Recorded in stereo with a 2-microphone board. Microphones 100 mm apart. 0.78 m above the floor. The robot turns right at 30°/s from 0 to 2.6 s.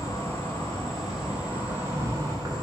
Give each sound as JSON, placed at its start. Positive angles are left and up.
{"t": 0.0, "sound": "an insect", "azimuth_deg": 150, "distance_m": 0.8}